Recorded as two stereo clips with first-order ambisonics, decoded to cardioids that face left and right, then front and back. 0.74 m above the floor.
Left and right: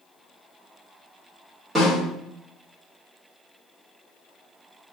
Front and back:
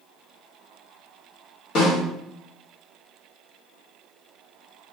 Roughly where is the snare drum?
Ahead.